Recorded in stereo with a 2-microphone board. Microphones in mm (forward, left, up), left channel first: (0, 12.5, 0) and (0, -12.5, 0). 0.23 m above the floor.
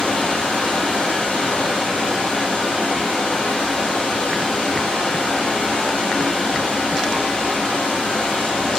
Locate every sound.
0.0 s running water: 60° left (ahead or behind), 3.5 m